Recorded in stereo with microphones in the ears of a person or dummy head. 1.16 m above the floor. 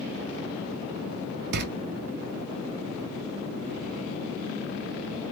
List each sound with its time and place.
1.5 s a door slam: 60° right (ahead or behind), 0.5 m